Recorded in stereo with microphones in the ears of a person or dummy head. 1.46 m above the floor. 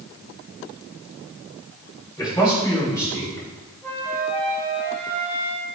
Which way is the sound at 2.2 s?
15° left (ahead or behind).